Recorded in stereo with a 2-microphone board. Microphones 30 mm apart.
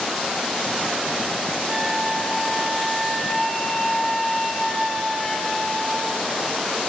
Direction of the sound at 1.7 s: 15° left (ahead or behind).